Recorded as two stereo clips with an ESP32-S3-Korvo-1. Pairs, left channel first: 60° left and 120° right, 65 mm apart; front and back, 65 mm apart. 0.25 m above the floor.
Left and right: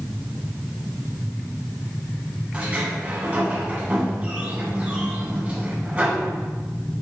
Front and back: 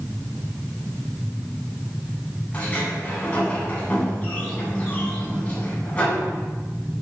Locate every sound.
2.5 s a sliding door: 60° right, 2 m